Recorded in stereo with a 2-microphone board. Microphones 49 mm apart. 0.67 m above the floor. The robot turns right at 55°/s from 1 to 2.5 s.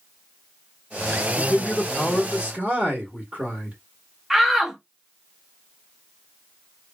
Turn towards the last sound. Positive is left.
turn(degrees=-5)  # may be behind; listen again after turning